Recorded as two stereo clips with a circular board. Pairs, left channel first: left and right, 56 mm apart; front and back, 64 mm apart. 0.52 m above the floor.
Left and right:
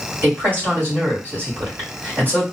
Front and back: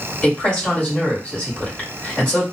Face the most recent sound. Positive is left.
turn(degrees=-65)